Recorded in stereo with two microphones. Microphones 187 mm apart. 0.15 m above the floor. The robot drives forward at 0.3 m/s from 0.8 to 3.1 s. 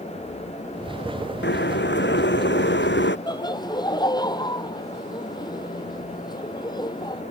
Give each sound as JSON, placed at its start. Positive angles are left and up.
{"t": 1.4, "sound": "boiling", "side_deg": 75}
{"t": 3.3, "sound": "laughter", "side_deg": 20}